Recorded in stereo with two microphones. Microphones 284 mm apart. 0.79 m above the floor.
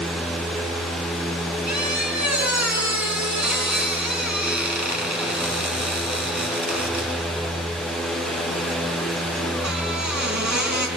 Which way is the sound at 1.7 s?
80° right.